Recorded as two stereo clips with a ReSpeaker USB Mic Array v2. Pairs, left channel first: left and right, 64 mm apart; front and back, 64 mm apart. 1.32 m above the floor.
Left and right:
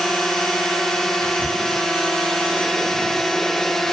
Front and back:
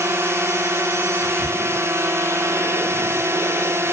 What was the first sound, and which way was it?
A drone, 170° left.